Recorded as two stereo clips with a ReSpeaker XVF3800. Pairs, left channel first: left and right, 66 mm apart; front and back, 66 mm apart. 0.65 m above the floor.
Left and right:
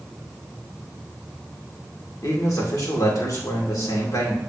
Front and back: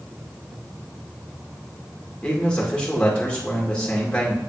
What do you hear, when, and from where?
2.2 s a man speaking: 70° left, 2.0 m